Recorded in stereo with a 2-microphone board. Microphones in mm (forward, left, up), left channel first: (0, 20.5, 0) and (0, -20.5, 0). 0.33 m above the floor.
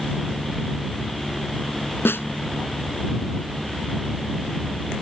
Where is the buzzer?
I don't hear a buzzer.